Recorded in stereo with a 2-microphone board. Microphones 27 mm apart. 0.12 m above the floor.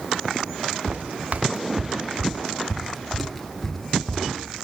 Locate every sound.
0.9 s footsteps: 75° right (ahead or behind), 1.2 m; by 4.3 s 10° left (ahead or behind), 2 m